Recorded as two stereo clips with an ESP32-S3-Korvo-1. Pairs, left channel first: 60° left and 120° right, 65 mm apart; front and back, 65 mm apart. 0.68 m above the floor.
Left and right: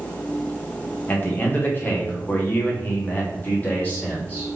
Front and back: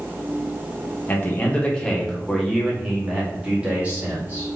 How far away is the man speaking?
About 1.2 m.